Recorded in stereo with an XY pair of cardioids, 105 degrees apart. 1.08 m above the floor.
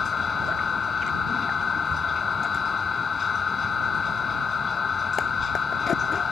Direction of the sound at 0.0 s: 35° left.